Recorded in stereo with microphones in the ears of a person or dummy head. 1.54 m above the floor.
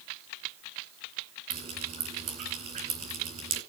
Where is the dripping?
45° right (ahead or behind), 3 m.